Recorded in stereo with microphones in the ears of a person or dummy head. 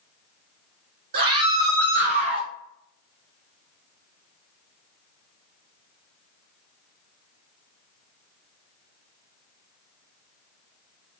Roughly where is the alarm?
I don't hear an alarm.